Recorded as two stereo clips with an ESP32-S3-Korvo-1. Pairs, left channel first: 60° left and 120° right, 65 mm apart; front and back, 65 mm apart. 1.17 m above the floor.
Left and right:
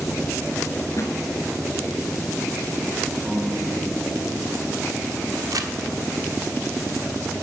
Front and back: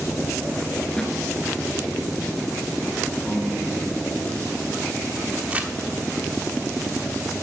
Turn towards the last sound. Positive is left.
turn(degrees=-115)